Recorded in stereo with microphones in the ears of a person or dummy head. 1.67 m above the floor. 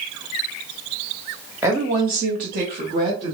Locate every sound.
1.6 s a woman speaking: 10° right (ahead or behind), 0.7 m; by 3.3 s 40° right (ahead or behind), 1.5 m